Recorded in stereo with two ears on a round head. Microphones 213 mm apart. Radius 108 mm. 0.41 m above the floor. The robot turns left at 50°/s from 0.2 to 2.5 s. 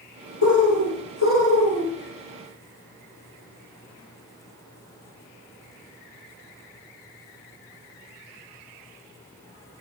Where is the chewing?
I don't hear chewing.